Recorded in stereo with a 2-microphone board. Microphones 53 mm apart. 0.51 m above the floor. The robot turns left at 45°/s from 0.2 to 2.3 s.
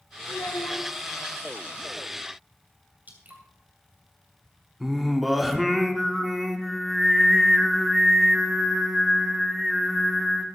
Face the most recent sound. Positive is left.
turn(degrees=0)  # may be behind; listen again after turning